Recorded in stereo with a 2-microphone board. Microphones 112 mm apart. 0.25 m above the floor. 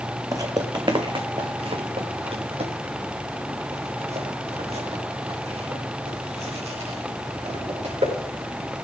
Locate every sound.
0.3 s footsteps: 30° right (ahead or behind), 1.2 m; by 8.1 s 80° right, 6.5 m